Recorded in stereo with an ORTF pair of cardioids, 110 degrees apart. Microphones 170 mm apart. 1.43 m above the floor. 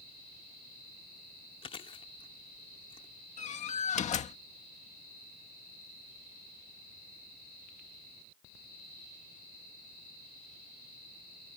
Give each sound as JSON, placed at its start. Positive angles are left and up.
{"t": 1.6, "sound": "chewing", "azimuth_deg": 35}
{"t": 3.4, "sound": "a door slam", "azimuth_deg": 45}